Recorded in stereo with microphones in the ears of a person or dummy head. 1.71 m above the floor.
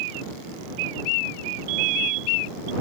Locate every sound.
1.7 s a fire alarm: 45° right (ahead or behind)